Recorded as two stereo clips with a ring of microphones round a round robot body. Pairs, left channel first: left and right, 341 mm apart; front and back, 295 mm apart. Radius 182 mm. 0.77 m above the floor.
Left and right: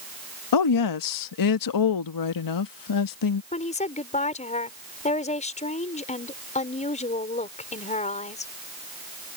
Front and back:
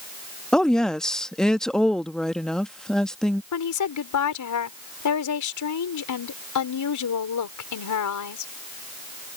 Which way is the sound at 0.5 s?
90° left.